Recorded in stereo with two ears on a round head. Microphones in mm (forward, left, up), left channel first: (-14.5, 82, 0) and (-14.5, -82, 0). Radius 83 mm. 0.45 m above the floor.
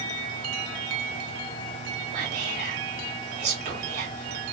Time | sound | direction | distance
2.1 | whispering | 65° right (ahead or behind) | 1.9 m